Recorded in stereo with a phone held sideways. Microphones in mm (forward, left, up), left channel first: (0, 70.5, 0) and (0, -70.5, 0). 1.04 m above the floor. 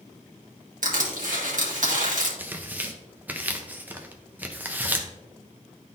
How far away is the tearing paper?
About 0.7 m.